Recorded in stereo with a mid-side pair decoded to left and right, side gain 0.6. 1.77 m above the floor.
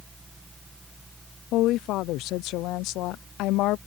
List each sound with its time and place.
0.0 s a fan: 10° right
1.5 s a woman speaking: 70° left